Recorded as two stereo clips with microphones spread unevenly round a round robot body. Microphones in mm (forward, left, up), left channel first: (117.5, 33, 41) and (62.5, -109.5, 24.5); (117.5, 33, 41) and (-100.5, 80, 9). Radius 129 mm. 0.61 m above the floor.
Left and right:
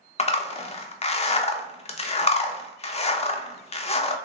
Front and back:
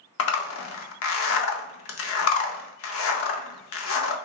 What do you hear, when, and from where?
0.2 s a zipper: 15° left, 0.5 m